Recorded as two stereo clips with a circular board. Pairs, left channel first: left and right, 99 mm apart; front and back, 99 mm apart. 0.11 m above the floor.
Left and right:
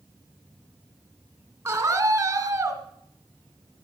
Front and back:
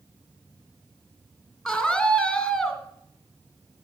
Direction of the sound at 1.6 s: 90° right.